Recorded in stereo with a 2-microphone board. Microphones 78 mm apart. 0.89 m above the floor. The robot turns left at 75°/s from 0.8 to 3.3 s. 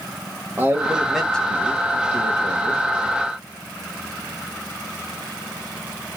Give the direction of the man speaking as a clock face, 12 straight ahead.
5 o'clock.